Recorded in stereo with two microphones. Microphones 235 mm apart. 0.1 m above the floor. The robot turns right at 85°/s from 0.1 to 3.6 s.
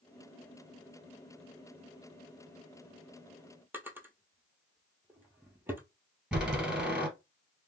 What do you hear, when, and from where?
3.7 s a drawer: 10° right (ahead or behind), 0.7 m
6.3 s a door slam: 5° right (ahead or behind), 1.6 m